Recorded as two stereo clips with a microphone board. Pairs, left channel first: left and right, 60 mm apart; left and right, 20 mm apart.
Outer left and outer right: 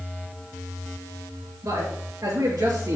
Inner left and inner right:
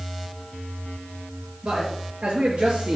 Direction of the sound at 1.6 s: 65° right (ahead or behind).